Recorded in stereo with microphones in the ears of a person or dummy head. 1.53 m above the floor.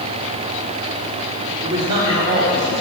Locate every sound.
1.6 s a man speaking: 25° right (ahead or behind), 3.5 m